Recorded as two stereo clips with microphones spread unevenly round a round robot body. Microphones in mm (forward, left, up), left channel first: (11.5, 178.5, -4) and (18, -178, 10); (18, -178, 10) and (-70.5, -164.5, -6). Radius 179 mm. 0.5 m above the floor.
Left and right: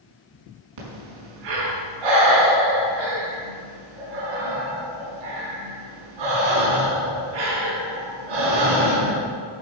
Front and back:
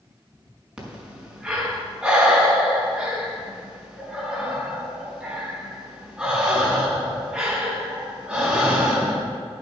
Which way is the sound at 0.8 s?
110° right.